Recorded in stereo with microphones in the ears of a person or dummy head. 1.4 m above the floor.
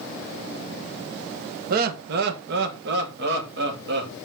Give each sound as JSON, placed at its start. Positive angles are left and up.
{"t": 1.7, "sound": "laughter", "side_deg": -55, "distance_m": 1.2}